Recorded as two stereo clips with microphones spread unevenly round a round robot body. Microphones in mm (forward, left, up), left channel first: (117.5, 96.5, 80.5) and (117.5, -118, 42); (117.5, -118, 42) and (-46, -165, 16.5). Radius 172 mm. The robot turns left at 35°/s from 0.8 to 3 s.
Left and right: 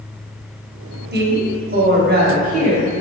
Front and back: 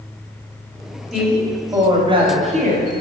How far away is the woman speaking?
About 1.5 m.